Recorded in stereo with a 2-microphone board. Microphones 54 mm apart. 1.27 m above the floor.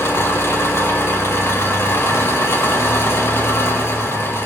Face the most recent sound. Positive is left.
turn(degrees=50)  # may be behind; listen again after turning